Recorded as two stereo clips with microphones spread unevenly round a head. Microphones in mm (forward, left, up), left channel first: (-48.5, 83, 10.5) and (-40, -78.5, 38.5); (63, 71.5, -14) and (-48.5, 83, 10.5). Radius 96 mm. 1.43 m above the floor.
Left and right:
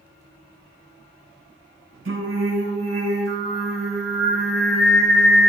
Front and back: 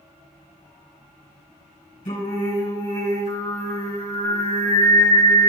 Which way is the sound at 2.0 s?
55° right.